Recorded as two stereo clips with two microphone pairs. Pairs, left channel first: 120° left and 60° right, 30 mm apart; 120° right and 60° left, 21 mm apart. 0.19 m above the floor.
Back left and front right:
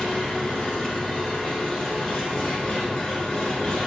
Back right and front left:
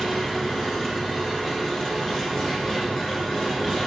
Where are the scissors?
No scissors in this recording.